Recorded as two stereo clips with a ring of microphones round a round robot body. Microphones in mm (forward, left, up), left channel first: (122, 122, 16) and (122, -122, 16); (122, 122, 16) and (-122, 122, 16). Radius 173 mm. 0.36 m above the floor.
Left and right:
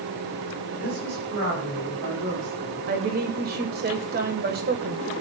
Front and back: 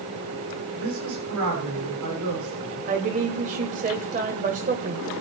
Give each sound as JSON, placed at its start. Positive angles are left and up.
{"t": 0.8, "sound": "a woman speaking", "azimuth_deg": -135, "distance_m": 8.0}
{"t": 2.9, "sound": "a woman speaking", "azimuth_deg": -130, "distance_m": 1.5}